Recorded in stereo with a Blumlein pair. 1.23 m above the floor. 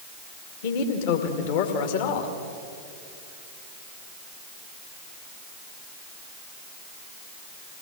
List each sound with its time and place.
0.6 s a man speaking: 50° left, 2.5 m